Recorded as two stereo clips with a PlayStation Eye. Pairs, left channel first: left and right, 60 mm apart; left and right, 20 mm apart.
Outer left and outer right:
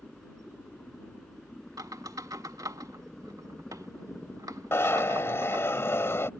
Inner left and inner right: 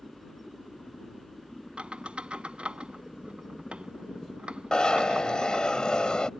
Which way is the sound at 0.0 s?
10° left (ahead or behind).